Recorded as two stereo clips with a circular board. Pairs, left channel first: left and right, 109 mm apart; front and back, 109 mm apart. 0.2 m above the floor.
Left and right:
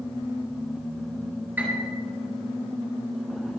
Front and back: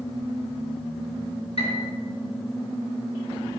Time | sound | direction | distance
1.6 | a piano | 15° right | 3.5 m